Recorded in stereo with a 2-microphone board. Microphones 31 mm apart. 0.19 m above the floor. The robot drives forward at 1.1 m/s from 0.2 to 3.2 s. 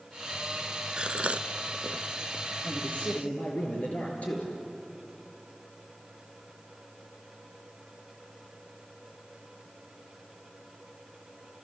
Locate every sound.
1.0 s a gasp: 40° right (ahead or behind), 1.0 m; by 2.5 s 25° right (ahead or behind), 1.3 m
2.6 s a man speaking: 50° left (ahead or behind), 4.5 m; by 4.5 s 55° left (ahead or behind), 4 m